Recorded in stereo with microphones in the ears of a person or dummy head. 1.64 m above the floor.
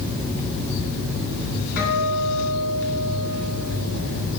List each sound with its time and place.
1.8 s a guitar: 60° left (ahead or behind), 2.5 m